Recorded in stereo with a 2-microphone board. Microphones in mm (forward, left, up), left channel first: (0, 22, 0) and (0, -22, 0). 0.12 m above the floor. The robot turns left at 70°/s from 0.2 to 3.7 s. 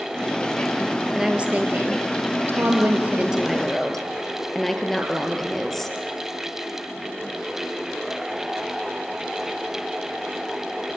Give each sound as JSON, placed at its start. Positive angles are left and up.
{"t": 1.1, "sound": "a woman speaking", "azimuth_deg": -10, "distance_m": 2.5}